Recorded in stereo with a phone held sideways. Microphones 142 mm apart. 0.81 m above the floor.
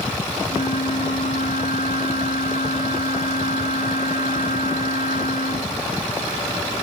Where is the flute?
80° left.